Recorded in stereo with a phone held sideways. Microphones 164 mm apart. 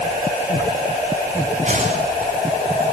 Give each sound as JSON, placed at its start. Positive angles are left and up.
{"t": 1.6, "sound": "a whoosh", "side_deg": -50, "distance_m": 8.0}